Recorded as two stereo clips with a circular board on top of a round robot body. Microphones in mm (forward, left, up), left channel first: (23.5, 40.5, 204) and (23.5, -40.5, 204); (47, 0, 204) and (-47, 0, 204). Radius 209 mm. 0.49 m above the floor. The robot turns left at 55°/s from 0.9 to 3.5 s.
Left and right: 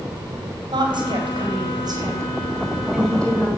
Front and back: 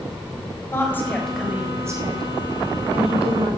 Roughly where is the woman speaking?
Ahead right.